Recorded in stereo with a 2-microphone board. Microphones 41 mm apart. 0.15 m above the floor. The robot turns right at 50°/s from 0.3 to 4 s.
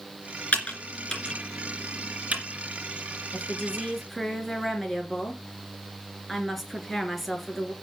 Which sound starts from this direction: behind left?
A woman speaking, at 3.3 s.